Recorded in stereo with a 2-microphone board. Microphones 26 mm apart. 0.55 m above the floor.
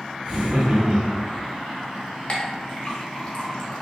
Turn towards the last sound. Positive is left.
turn(degrees=40)  # may be behind; listen again after turning